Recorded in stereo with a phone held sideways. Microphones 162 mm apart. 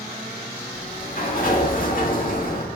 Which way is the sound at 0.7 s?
60° left (ahead or behind).